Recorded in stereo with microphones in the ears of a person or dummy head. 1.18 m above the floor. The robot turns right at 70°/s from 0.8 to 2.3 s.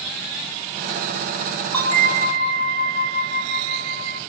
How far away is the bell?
About 1.3 m.